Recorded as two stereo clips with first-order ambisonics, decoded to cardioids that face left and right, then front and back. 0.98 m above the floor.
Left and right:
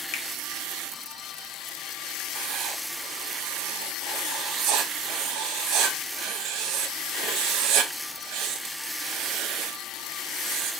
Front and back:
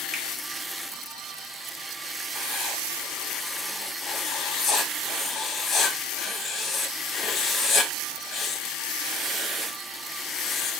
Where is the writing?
60° right, 0.6 m.